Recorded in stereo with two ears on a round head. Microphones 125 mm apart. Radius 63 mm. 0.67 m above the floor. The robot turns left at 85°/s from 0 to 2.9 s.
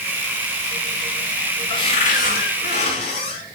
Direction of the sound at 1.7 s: 145° left.